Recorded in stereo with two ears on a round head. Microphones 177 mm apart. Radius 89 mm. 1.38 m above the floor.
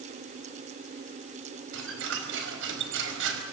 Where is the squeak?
70° right (ahead or behind), 5 m.